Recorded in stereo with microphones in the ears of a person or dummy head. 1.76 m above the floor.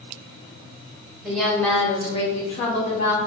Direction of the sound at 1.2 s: 5° right (ahead or behind).